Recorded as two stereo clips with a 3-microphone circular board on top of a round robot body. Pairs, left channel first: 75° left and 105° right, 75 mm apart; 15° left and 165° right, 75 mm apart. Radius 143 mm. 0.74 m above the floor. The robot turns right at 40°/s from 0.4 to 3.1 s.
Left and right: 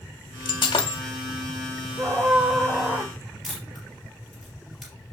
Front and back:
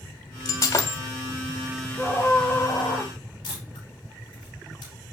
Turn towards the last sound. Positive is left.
turn(degrees=-15)